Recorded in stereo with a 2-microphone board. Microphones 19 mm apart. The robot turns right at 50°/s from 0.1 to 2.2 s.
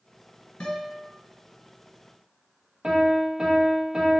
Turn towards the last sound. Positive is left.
turn(degrees=-35)  # may be behind; listen again after turning